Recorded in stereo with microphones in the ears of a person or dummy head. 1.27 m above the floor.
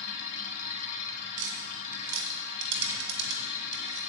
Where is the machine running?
40° left (ahead or behind), 1.9 m.